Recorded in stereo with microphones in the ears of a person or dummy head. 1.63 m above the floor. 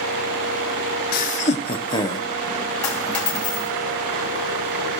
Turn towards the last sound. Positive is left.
turn(degrees=10)  # may be behind; listen again after turning